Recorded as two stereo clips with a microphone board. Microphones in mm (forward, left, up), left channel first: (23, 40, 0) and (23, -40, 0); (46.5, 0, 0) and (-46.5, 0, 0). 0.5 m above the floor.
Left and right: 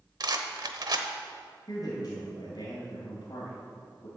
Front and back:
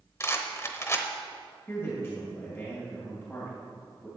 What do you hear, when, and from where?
0.2 s a rattle: 60° right, 0.9 m
1.7 s a man speaking: 60° left, 2 m